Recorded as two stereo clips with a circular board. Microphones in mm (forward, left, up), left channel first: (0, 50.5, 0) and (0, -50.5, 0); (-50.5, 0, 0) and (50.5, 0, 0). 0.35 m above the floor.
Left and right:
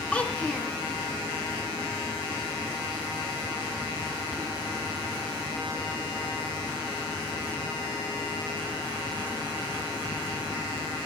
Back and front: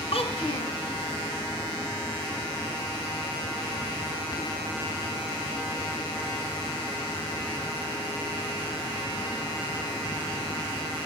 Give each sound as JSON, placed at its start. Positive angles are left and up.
{"t": 0.1, "sound": "a child speaking", "azimuth_deg": 170, "distance_m": 3.0}